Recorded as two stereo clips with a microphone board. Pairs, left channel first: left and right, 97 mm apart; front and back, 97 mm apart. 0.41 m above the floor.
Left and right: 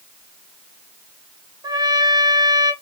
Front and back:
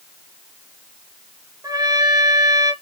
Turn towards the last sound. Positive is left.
turn(degrees=-130)